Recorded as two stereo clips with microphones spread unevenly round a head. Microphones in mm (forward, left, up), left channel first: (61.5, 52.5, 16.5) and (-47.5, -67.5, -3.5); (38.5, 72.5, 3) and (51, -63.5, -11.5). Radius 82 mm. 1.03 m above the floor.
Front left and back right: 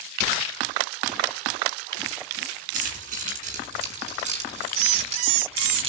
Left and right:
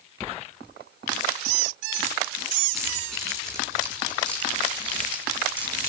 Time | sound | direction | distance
2.7 | keys jangling | 175° right | 8 m